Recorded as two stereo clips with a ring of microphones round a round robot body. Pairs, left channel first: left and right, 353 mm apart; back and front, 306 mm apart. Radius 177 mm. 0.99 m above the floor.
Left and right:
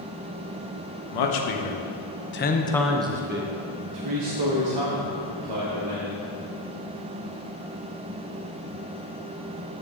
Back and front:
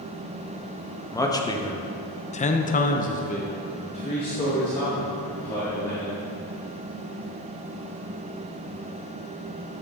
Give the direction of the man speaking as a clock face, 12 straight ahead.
9 o'clock.